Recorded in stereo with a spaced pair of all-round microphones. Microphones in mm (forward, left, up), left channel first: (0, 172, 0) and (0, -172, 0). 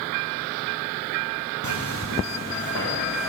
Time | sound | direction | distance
1.6 | footsteps | 55° left (ahead or behind) | 3 m